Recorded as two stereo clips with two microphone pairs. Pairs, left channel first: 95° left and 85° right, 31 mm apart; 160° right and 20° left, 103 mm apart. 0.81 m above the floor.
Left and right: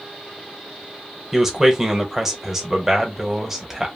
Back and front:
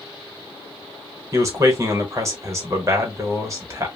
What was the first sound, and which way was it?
A man speaking, 20° right.